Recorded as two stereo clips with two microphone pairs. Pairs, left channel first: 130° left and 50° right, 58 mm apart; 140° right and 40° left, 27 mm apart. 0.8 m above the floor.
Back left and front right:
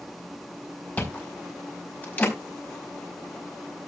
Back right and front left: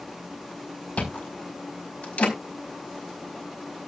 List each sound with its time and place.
1.0 s chewing: 175° right, 5 m